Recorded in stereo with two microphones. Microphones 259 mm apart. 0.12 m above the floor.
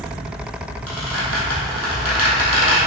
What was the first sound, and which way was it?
A squeak, 60° left (ahead or behind).